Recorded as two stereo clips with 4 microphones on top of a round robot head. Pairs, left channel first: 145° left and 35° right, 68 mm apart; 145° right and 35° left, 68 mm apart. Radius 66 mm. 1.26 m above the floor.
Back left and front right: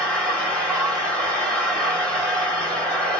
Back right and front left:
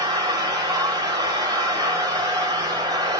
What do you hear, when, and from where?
0.0 s an engine running: 70° left, 1.9 m